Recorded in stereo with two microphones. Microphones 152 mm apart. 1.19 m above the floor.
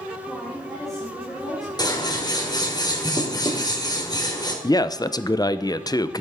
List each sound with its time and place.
0.3 s a woman speaking: centre (ahead or behind), 3.5 m
1.8 s scissors: 25° left (ahead or behind), 1.8 m
4.6 s a man speaking: 25° left (ahead or behind), 0.5 m